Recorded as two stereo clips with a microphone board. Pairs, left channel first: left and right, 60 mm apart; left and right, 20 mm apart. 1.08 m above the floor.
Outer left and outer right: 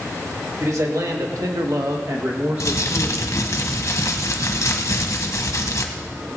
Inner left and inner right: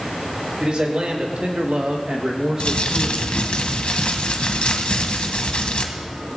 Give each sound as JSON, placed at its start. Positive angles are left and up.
{"t": 0.6, "sound": "a man speaking", "side_deg": -60, "distance_m": 1.9}
{"t": 2.6, "sound": "crumpling", "side_deg": 60, "distance_m": 1.2}